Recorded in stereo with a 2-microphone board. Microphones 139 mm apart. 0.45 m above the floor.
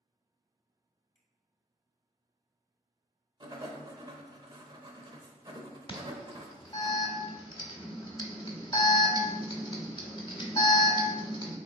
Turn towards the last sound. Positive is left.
turn(degrees=35)  # may be behind; listen again after turning